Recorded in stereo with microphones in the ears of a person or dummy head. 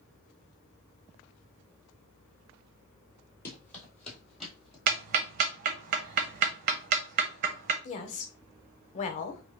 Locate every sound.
3.5 s running footsteps: 10° left (ahead or behind), 1.5 m; by 4.8 s 5° right (ahead or behind), 1.9 m
4.9 s ticking: 55° right (ahead or behind), 0.6 m
7.8 s a woman speaking: 45° left (ahead or behind), 0.6 m